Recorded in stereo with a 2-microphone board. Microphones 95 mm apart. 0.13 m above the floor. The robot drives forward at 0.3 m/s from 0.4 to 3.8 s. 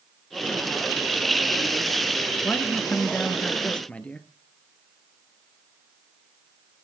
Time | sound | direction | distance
2.4 | a man speaking | 15° left (ahead or behind) | 1.5 m